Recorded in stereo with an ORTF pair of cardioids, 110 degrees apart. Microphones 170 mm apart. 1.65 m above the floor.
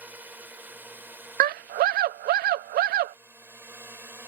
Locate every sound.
0.0 s a drone: 10° right; by 4.3 s 15° right
1.4 s a scream: 70° right